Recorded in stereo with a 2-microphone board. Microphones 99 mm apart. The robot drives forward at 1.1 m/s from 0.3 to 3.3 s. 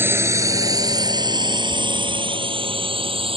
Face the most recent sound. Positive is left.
turn(degrees=-65)  # may be behind; listen again after turning